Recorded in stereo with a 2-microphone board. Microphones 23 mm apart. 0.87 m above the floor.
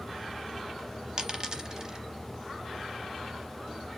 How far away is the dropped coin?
About 0.8 m.